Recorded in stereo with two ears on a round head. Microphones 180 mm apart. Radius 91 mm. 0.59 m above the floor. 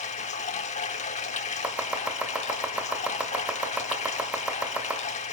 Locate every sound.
0.0 s running water: 35° left (ahead or behind), 1.1 m
1.6 s chopping: 5° right (ahead or behind), 2 m